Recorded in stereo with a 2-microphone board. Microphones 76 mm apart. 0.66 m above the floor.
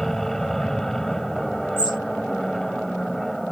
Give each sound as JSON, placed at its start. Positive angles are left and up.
{"t": 0.0, "sound": "an aircraft", "side_deg": 0}
{"t": 1.8, "sound": "a bird", "side_deg": 75}